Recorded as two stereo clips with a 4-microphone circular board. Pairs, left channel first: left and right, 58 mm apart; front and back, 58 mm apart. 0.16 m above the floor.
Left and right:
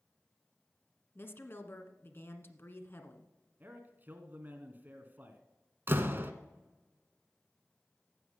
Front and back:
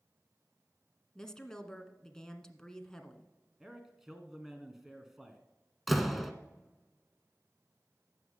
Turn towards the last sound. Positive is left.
turn(degrees=-95)